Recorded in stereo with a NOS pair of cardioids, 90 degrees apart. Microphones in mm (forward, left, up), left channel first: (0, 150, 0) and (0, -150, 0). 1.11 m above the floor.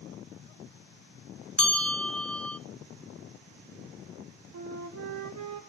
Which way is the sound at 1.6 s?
5° left.